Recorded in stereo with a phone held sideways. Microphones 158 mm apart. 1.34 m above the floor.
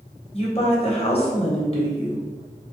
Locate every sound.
0.3 s a woman speaking: 40° left (ahead or behind), 1.0 m